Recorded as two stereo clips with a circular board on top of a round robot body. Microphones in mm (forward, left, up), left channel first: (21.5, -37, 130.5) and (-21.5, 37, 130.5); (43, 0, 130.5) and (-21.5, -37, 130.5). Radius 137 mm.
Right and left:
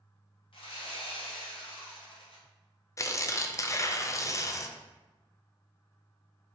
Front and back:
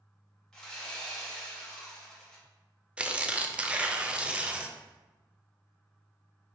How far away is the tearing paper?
About 0.6 m.